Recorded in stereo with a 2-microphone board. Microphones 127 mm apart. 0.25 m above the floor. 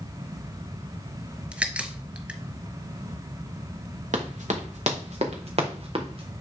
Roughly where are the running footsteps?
Right.